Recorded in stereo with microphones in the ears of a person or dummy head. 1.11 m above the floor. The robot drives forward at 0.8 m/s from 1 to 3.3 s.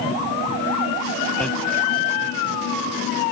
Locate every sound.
1.4 s hammering: 5° left (ahead or behind)